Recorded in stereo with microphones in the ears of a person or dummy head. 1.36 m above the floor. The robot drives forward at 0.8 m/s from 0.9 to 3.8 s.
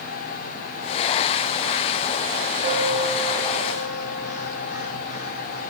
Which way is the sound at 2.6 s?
40° right (ahead or behind).